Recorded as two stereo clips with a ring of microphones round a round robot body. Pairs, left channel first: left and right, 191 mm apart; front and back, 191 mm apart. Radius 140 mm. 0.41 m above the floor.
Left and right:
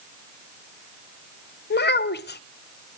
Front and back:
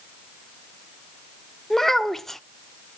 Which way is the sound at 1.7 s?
90° left.